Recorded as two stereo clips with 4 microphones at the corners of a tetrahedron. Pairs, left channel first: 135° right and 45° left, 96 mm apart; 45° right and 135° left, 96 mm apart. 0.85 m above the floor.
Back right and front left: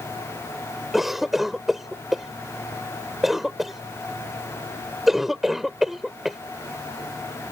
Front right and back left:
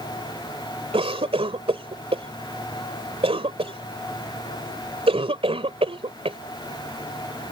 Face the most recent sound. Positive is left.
turn(degrees=135)